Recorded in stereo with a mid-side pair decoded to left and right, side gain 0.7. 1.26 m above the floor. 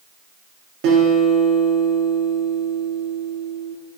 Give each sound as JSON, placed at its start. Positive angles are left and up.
{"t": 0.8, "sound": "a guitar", "azimuth_deg": -70, "distance_m": 0.8}